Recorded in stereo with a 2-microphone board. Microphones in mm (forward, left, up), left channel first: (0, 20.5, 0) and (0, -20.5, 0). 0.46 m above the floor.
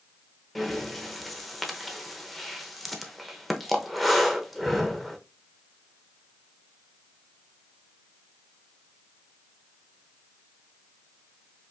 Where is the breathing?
Centre (ahead or behind), 0.6 m.